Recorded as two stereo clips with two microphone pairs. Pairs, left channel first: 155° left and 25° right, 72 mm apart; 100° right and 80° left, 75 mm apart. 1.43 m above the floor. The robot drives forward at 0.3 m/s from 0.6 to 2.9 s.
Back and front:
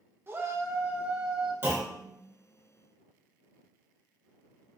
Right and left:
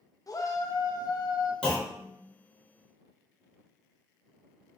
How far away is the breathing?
No breathing in this recording.